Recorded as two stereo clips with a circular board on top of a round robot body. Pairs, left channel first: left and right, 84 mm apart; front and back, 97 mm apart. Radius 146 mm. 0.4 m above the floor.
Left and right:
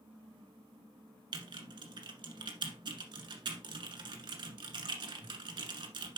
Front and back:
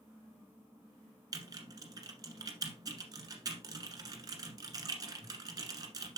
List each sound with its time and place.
1.3 s typing on a keyboard: 125° right, 1.3 m